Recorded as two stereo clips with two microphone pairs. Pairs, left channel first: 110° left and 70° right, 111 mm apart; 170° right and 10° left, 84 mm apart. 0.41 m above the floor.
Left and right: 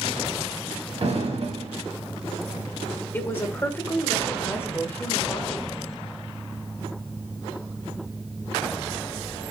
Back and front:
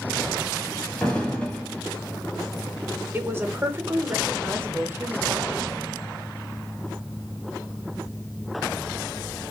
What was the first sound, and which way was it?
An explosion, 95° right.